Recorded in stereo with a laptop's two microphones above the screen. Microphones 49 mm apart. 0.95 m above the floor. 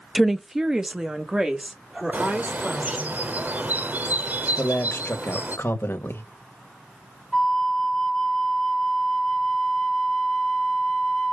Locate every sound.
0.1 s a woman speaking: 5° right (ahead or behind), 0.6 m; by 3.1 s 20° right (ahead or behind), 3 m
2.1 s a bird: 35° right (ahead or behind), 0.7 m
4.6 s a man speaking: 50° left (ahead or behind), 1.4 m
7.3 s a flute: 10° left (ahead or behind), 0.5 m